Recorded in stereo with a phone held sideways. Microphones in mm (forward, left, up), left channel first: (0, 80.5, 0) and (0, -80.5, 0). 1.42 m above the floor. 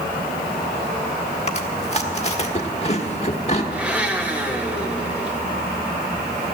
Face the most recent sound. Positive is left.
turn(degrees=-10)  # may be behind; listen again after turning